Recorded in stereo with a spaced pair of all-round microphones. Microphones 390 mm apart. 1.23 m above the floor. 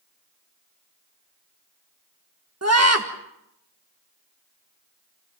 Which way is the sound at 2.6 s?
40° right (ahead or behind).